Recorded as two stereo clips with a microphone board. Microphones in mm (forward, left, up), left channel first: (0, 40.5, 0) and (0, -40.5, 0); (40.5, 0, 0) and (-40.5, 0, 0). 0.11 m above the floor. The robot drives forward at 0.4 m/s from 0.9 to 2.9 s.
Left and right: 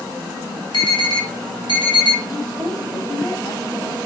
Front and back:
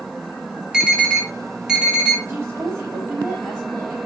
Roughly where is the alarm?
Left.